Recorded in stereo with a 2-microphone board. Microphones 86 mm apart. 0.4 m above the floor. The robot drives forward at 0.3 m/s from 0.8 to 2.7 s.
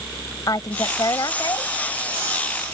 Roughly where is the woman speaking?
Left.